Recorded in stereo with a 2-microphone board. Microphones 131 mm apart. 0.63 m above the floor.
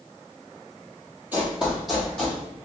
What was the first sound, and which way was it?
Running footsteps, 15° right (ahead or behind).